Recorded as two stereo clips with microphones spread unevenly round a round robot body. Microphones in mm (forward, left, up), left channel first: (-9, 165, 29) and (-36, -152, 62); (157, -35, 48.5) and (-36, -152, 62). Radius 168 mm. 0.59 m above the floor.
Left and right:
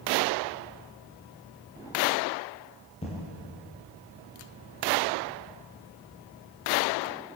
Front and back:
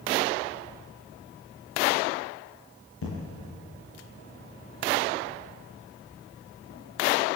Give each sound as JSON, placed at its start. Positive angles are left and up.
{"t": 3.0, "sound": "an explosion", "azimuth_deg": 10, "distance_m": 6.5}